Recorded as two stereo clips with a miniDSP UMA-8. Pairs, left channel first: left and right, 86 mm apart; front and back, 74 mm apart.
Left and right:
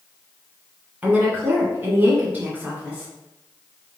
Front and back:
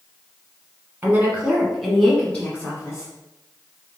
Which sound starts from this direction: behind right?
A woman speaking, at 1.0 s.